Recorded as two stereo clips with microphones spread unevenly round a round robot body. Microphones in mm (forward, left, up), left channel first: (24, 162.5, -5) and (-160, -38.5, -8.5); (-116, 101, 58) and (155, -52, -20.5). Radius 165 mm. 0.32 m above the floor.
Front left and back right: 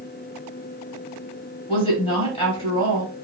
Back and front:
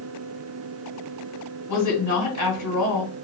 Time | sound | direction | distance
1.7 | a woman speaking | 110° left | 1.9 m